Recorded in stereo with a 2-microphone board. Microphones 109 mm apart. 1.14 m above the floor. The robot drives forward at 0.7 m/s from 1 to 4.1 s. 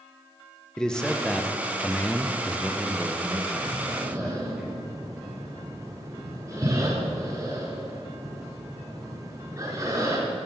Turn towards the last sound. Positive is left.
turn(degrees=-30)  # may be behind; listen again after turning